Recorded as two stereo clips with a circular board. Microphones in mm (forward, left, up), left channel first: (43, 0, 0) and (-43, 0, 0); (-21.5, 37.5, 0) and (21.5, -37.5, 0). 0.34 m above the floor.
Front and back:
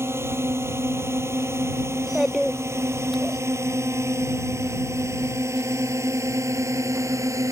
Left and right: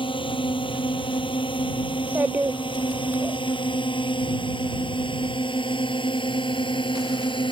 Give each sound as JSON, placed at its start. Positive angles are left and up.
{"t": 0.0, "sound": "a drone", "azimuth_deg": 120}
{"t": 1.9, "sound": "a child speaking", "azimuth_deg": -90}